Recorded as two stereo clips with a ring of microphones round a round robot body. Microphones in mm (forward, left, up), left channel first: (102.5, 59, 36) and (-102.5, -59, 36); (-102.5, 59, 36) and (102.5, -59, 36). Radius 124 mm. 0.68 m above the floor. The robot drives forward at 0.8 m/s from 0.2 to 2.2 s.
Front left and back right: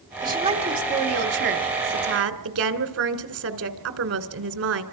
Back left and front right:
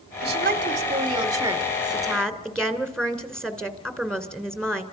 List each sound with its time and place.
0.2 s a woman speaking: 75° right, 1.9 m; by 4.8 s 125° right, 2 m